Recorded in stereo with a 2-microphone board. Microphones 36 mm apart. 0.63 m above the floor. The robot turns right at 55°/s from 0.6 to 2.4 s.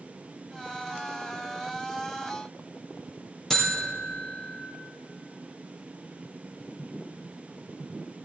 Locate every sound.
3.5 s a buzzer: 10° left (ahead or behind), 3 m